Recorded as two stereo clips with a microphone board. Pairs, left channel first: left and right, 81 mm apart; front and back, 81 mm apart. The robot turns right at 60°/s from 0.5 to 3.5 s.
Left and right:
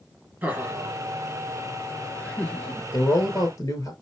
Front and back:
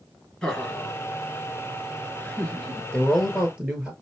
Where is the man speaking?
75° left, 1.9 m; by 3.9 s 110° left, 1.9 m.